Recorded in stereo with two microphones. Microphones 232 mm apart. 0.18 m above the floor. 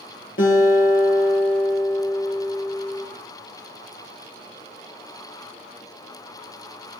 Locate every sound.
0.4 s a guitar: 60° left (ahead or behind), 4 m